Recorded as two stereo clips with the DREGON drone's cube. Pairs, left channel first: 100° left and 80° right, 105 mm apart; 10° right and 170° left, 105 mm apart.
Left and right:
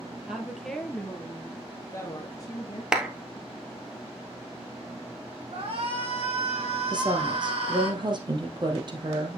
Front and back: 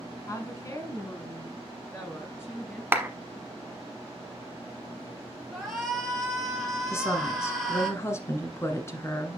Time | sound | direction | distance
0.3 | a woman speaking | straight ahead | 1.2 m
2.9 | a clap | 150° right | 1.1 m
5.5 | a shout | 100° right | 3.5 m
6.9 | a woman speaking | 65° right | 1.7 m